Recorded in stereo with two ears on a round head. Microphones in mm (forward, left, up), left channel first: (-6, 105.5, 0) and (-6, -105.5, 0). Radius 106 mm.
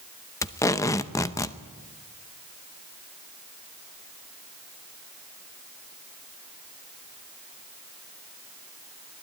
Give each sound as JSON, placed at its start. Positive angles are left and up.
{"t": 0.4, "sound": "tape being pulled", "side_deg": 15, "distance_m": 0.7}